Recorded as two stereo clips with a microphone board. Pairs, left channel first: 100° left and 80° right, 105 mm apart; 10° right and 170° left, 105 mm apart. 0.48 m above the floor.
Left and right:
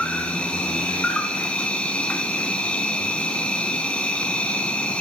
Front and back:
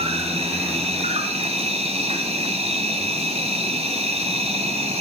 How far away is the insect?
About 1.8 m.